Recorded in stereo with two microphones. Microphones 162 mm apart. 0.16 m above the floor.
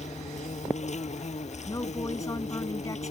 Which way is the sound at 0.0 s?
45° left (ahead or behind).